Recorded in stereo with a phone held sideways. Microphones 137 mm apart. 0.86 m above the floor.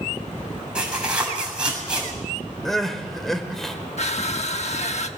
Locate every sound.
0.8 s tearing paper: 5° right (ahead or behind), 7 m
2.6 s crying: centre (ahead or behind), 1.8 m
4.0 s crushing: 55° left (ahead or behind), 1.1 m